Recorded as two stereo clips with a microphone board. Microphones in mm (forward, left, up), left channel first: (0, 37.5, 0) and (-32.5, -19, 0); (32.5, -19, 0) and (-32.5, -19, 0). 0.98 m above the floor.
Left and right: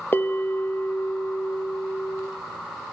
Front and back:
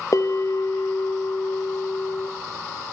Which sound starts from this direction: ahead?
A bell, at 0.1 s.